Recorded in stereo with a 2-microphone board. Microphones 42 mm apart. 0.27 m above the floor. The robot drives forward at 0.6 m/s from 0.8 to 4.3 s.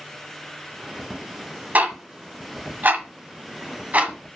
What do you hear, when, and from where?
1.8 s ticking: 45° right (ahead or behind), 1.3 m; by 4.1 s 40° right (ahead or behind), 1.5 m